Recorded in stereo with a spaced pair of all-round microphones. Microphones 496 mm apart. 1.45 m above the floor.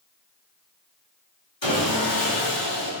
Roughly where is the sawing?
Left.